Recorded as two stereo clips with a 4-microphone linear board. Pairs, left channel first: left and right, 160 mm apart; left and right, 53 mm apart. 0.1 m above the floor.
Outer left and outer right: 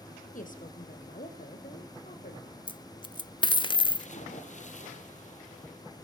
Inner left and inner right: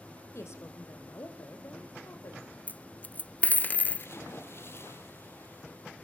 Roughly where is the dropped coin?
Left.